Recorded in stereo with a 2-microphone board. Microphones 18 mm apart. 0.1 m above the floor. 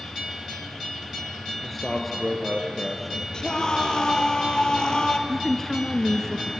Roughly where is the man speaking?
Centre.